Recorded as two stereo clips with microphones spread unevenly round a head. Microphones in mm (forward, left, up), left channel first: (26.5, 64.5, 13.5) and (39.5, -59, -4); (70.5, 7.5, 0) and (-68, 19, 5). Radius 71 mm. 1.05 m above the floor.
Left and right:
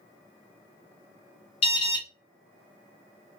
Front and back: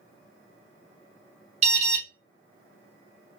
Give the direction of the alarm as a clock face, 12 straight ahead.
7 o'clock.